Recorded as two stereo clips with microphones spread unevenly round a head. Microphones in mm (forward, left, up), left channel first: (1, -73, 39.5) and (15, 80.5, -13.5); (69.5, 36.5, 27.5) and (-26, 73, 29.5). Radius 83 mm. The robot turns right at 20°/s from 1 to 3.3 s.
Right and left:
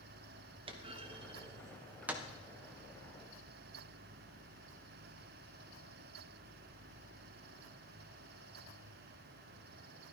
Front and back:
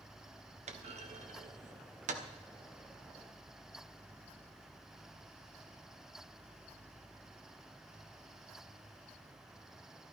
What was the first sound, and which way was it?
A clunk, 145° left.